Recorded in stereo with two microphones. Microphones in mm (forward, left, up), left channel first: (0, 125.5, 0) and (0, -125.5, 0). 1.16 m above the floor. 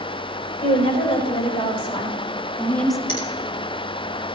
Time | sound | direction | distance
0.6 | a woman speaking | 25° left (ahead or behind) | 5 m
3.1 | a finger snap | 50° left (ahead or behind) | 3.5 m